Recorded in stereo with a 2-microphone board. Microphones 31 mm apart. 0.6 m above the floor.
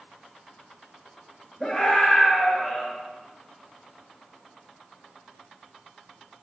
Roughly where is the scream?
Centre.